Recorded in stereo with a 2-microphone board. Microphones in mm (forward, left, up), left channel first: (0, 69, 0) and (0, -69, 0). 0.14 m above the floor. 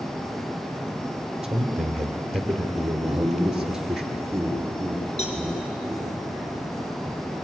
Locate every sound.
1.4 s a man speaking: 5° right (ahead or behind), 2.5 m
3.0 s laughter: 10° right (ahead or behind), 5 m
5.2 s a cowbell: 50° left (ahead or behind), 3 m